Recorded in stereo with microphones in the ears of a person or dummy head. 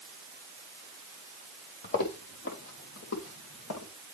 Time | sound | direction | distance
1.8 | footsteps | 50° left (ahead or behind) | 3 m